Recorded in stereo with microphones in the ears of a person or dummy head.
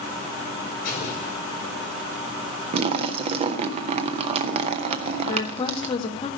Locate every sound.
0.8 s an explosion: 40° left (ahead or behind), 4.5 m
2.7 s a splash: 35° right (ahead or behind), 0.6 m
5.3 s a woman speaking: 25° left (ahead or behind), 2 m